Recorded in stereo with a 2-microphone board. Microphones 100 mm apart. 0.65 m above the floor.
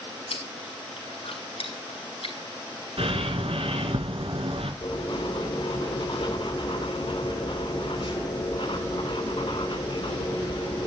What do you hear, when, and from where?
0.3 s chewing: 80° left, 5 m
3.0 s a bird: 75° right (ahead or behind), 3 m
4.8 s writing: 60° left (ahead or behind), 2.5 m